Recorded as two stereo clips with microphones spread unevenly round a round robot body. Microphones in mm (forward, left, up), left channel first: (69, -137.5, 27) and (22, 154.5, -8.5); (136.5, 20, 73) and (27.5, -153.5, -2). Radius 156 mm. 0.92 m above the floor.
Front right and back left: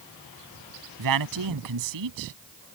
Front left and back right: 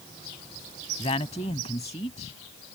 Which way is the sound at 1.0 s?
130° left.